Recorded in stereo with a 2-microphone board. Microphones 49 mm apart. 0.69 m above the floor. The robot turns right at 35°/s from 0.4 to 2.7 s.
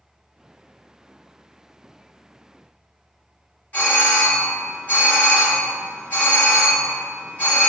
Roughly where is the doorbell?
Left.